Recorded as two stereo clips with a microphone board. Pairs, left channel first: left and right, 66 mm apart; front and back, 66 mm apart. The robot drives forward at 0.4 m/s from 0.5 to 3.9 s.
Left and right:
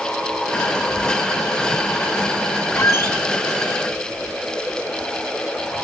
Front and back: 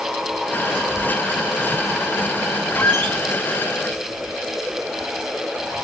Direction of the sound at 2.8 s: 60° left.